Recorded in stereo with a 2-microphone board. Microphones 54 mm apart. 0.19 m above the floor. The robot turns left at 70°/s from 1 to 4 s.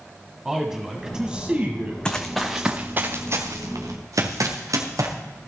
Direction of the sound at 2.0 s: 15° left (ahead or behind).